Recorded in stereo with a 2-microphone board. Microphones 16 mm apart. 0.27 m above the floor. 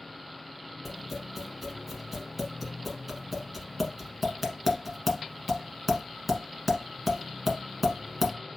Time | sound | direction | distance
0.8 | tapping | 10° right (ahead or behind) | 1.2 m